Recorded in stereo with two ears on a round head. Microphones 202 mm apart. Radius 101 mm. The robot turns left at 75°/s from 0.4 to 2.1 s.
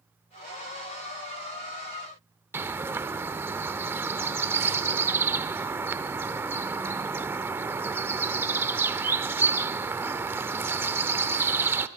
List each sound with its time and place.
2.5 s a bird: 10° right (ahead or behind), 0.7 m